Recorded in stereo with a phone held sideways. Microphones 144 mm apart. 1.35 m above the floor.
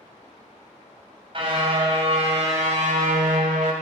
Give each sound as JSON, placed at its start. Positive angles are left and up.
{"t": 1.3, "sound": "a car horn", "side_deg": -40, "distance_m": 4.0}